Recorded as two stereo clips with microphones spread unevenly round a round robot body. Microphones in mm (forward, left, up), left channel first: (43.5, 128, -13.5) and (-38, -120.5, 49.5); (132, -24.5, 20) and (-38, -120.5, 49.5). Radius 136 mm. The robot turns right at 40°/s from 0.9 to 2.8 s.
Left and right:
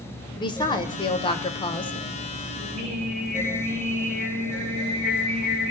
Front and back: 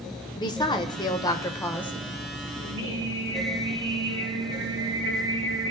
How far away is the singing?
About 8 m.